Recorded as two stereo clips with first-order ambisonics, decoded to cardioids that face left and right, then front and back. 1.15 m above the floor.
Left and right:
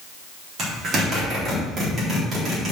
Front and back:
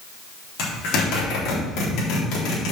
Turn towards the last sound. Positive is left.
turn(degrees=-30)